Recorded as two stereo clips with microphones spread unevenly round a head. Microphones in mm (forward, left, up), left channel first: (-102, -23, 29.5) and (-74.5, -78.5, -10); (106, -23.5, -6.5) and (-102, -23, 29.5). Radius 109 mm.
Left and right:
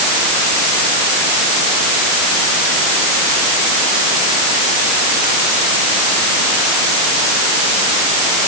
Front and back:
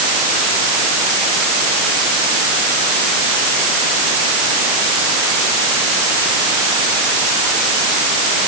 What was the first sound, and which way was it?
Only background noise.